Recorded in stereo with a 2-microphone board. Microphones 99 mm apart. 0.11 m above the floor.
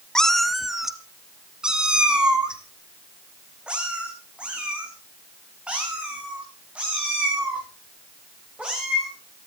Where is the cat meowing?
5° left (ahead or behind), 0.7 m; by 9.1 s 10° right (ahead or behind), 10 m.